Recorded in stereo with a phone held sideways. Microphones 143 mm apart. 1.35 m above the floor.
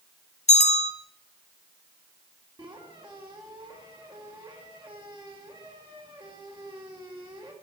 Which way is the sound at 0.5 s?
55° left (ahead or behind).